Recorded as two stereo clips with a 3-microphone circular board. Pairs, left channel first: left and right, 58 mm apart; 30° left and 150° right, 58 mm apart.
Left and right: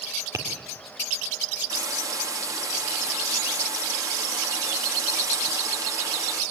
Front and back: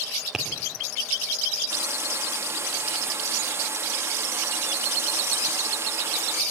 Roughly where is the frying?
Right.